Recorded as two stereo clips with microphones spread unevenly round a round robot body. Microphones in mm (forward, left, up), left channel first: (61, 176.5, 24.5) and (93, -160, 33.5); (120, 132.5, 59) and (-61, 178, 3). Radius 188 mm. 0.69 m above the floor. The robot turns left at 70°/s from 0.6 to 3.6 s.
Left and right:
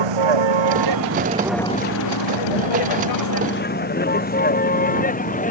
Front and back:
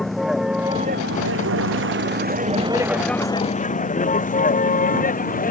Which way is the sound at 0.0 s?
105° right.